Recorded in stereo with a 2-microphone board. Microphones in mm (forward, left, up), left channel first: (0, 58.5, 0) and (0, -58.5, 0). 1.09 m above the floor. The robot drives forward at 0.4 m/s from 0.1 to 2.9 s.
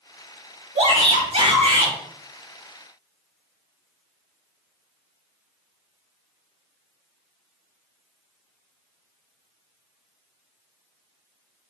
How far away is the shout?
About 4.5 m.